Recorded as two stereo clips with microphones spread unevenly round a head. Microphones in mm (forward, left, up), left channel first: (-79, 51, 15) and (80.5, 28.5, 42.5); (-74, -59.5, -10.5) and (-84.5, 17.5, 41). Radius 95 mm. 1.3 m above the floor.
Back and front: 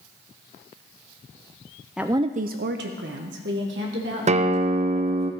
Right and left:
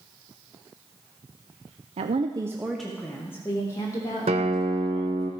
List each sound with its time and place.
2.0 s a woman speaking: 85° left, 0.6 m; by 5.3 s 40° right, 3.5 m
4.3 s a guitar: 40° left, 0.7 m